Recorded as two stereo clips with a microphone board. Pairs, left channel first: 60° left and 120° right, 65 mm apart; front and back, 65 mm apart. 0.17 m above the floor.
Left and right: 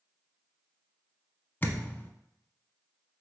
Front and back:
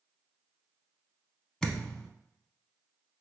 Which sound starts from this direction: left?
A thud, at 1.6 s.